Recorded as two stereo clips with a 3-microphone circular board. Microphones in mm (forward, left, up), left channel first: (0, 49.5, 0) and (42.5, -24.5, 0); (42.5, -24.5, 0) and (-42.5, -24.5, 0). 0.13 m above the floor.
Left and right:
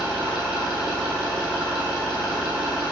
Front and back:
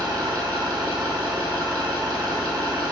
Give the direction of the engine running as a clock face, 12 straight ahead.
5 o'clock.